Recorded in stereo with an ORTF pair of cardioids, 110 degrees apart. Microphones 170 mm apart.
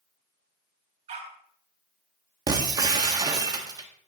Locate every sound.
1.1 s a dog barking: 45° right, 3.5 m
2.5 s breaking glass: 25° right, 1.8 m